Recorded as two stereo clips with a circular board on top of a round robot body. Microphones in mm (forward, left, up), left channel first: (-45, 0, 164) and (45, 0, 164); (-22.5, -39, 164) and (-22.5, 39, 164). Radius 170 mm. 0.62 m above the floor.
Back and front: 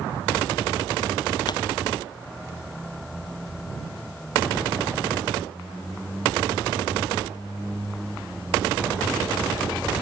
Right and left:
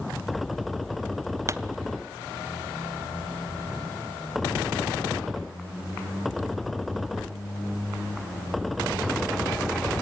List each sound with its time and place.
1.5 s a pop: 145° left, 0.7 m